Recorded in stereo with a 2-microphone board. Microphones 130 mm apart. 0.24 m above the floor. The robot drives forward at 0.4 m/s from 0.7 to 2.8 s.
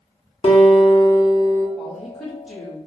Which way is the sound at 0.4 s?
45° left (ahead or behind).